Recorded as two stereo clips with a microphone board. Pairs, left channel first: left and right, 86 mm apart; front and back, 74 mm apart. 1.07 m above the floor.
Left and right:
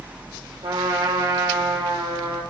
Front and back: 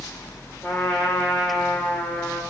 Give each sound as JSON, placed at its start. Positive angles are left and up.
{"t": 0.6, "sound": "a trumpet", "azimuth_deg": -70, "distance_m": 3.5}